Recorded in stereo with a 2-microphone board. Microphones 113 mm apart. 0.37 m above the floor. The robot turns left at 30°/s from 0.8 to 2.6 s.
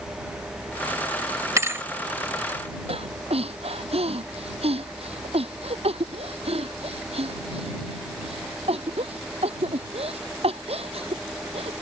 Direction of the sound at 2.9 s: 65° right (ahead or behind).